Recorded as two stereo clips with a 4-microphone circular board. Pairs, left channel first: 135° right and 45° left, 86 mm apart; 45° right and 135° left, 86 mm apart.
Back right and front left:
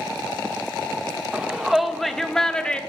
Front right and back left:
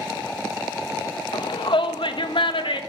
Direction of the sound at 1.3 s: 35° right.